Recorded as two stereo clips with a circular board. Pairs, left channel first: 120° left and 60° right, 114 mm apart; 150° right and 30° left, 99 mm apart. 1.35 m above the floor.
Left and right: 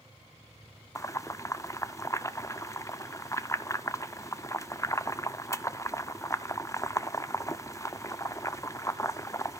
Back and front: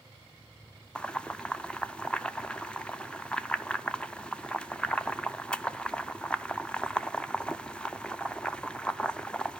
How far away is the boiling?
About 0.5 m.